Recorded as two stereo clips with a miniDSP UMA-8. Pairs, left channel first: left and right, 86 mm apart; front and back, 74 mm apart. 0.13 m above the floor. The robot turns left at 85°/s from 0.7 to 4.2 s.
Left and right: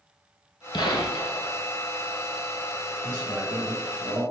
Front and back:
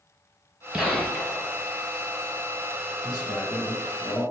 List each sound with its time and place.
0.7 s a gunshot: 100° left, 0.5 m; by 1.5 s 35° left, 0.5 m
3.0 s a man speaking: 60° left, 1.8 m; by 4.2 s 40° right, 1.8 m